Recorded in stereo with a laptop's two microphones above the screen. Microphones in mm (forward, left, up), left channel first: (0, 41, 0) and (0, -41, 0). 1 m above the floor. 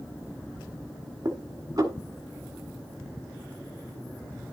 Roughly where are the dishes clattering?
Right.